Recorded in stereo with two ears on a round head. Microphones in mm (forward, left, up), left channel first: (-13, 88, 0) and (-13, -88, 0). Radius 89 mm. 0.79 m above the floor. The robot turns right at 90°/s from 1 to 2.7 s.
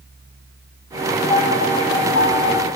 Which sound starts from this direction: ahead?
A piano, at 1.3 s.